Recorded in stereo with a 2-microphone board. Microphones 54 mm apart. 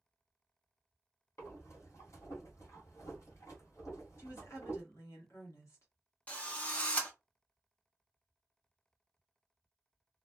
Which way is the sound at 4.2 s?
60° left (ahead or behind).